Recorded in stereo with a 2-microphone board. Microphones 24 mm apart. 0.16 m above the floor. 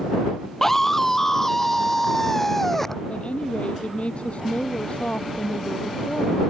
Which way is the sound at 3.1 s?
55° left (ahead or behind).